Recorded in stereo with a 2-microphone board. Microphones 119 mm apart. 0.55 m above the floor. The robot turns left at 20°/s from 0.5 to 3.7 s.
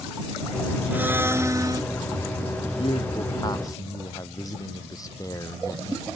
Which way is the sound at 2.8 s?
50° left (ahead or behind).